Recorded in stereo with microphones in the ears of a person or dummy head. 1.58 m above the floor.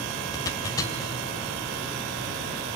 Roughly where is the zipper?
Left.